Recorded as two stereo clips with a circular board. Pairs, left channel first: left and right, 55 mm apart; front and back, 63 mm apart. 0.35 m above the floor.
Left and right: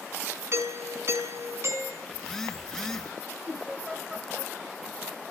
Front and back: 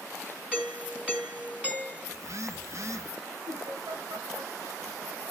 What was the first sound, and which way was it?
A doorbell, 115° right.